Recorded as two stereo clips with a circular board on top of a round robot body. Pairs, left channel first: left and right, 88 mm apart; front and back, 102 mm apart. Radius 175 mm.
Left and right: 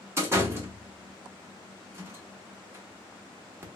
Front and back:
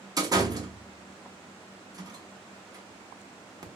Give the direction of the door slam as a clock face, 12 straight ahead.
5 o'clock.